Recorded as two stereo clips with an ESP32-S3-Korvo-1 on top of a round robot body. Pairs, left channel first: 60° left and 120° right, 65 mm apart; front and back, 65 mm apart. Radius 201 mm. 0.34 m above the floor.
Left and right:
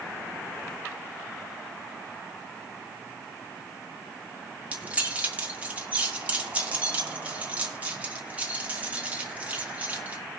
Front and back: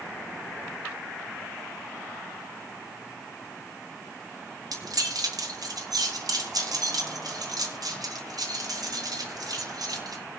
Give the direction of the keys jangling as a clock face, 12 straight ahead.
6 o'clock.